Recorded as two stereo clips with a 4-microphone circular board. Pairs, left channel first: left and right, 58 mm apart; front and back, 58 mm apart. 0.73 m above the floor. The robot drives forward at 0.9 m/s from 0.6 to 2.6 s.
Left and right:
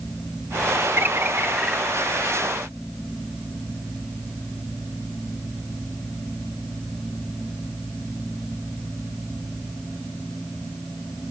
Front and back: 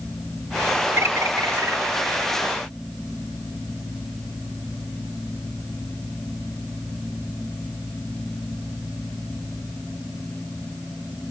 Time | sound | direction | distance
1.0 | a bird | 135° right | 0.6 m